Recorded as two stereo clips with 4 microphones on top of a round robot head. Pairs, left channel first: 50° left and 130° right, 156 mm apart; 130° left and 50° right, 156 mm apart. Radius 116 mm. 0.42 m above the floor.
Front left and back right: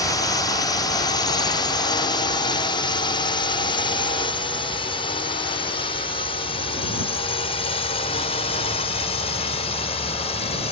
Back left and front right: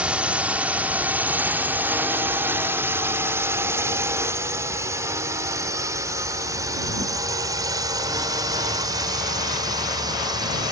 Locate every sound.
0.0 s a drone: 25° left; by 10.7 s 10° left